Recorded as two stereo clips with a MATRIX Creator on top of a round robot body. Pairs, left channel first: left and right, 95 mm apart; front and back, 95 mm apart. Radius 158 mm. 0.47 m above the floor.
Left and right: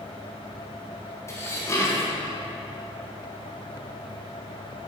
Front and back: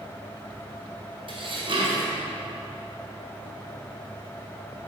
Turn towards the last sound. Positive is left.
turn(degrees=150)